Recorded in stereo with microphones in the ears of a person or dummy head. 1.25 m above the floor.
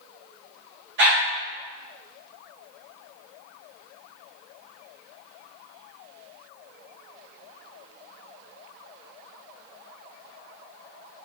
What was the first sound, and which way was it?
A dog barking, 65° right (ahead or behind).